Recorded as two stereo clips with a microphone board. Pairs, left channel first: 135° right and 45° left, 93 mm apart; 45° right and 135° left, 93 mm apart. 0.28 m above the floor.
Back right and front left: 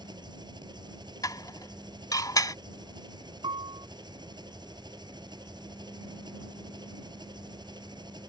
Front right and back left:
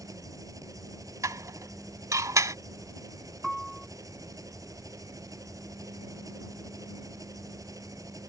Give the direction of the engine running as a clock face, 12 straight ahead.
9 o'clock.